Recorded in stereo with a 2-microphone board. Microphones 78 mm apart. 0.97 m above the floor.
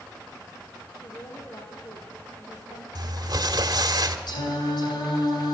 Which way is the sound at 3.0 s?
55° right (ahead or behind).